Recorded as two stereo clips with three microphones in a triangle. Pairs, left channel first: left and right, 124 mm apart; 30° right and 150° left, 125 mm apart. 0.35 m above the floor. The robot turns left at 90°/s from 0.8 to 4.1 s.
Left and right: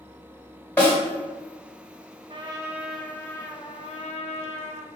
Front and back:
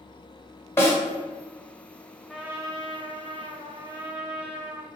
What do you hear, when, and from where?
0.8 s a snare drum: 20° left, 1.7 m; by 1.0 s 5° left, 1.7 m
2.3 s a trumpet: 120° right, 0.5 m; by 4.9 s 80° left, 0.5 m